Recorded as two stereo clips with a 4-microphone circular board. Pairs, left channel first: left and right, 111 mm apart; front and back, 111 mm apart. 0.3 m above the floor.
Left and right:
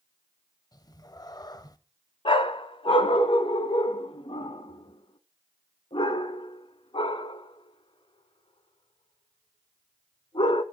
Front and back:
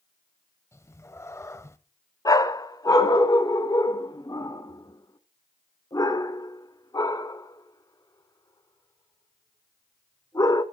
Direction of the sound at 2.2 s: 55° left.